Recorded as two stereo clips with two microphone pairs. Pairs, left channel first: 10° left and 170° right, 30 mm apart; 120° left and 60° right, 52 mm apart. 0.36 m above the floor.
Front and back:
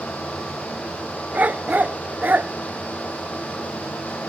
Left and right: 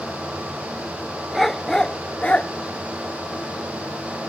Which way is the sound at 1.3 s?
150° right.